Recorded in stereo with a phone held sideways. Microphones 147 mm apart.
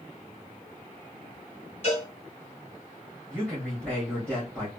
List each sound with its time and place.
1.8 s a cowbell: 50° left (ahead or behind), 2.5 m
3.3 s a man speaking: 5° left (ahead or behind), 1.6 m